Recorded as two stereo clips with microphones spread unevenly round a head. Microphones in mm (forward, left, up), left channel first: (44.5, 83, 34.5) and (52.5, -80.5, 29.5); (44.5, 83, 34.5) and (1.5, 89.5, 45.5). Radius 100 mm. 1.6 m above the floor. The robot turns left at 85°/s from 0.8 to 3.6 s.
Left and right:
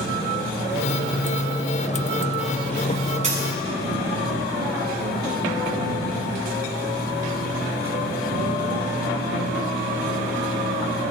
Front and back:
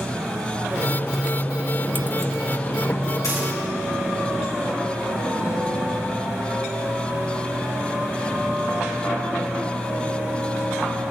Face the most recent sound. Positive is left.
turn(degrees=-70)